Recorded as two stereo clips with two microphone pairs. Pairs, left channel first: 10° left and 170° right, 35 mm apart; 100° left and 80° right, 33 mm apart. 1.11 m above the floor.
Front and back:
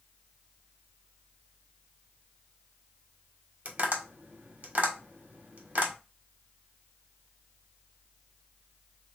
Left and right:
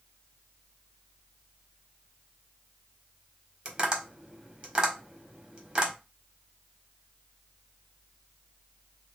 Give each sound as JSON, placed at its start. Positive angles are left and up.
{"t": 3.6, "sound": "tapping", "azimuth_deg": -130, "distance_m": 1.4}